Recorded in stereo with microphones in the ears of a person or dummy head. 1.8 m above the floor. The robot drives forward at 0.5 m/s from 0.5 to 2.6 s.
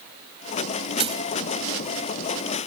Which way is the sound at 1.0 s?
30° right (ahead or behind).